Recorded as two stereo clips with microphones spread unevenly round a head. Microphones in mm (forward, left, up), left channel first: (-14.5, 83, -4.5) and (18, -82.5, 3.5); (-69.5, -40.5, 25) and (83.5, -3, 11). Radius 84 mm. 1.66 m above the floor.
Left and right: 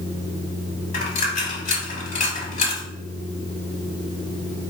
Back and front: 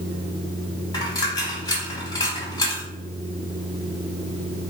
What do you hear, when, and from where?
0.9 s a dropped coin: 135° left, 1.7 m